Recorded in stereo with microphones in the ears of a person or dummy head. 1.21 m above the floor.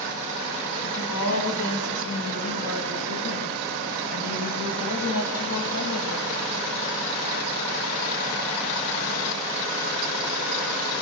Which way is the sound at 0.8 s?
75° left (ahead or behind).